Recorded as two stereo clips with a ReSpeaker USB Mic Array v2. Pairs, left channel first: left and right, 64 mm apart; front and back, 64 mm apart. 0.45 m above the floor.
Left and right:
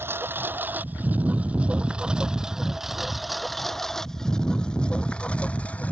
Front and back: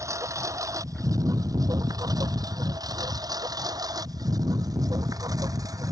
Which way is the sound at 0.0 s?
145° right.